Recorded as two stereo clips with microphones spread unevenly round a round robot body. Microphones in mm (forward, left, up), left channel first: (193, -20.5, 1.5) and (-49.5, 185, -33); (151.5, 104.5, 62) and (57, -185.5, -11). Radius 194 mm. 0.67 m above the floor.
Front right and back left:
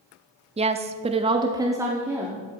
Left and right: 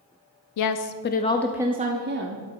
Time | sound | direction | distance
0.6 | a woman speaking | 80° left | 0.7 m